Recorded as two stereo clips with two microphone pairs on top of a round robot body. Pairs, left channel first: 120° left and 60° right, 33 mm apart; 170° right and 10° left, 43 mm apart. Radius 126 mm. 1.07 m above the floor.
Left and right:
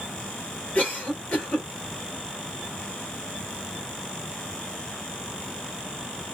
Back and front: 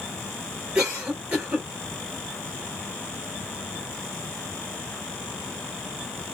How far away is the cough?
About 3.5 m.